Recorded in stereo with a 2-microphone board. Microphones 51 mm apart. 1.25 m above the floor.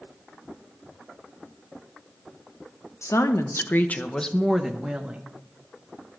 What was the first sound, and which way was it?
A woman speaking, 75° left (ahead or behind).